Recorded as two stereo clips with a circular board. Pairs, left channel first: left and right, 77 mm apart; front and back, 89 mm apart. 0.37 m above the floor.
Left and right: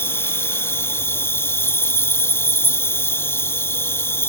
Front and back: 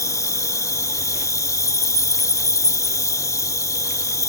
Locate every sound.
0.0 s an insect: 40° left